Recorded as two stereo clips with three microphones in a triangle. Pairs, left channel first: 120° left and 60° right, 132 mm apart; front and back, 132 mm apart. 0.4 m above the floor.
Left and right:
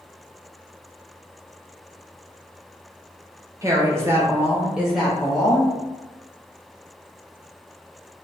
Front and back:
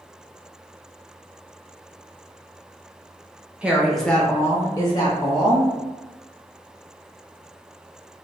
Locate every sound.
3.6 s a woman speaking: 105° right, 0.9 m; by 5.7 s 35° left, 1.3 m